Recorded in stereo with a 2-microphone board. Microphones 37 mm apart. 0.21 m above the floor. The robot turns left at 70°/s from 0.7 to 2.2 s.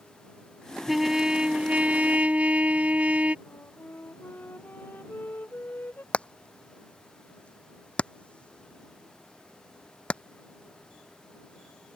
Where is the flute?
60° left (ahead or behind).